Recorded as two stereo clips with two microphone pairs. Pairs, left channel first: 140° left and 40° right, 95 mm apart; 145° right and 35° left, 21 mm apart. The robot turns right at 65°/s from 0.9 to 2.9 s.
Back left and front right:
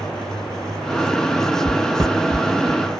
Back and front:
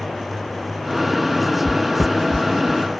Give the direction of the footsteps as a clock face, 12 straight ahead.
12 o'clock.